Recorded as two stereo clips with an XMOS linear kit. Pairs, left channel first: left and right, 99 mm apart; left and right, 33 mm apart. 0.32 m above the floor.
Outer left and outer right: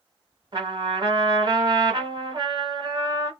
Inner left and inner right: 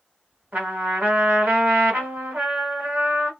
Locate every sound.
0.5 s a trumpet: 50° right (ahead or behind), 1.4 m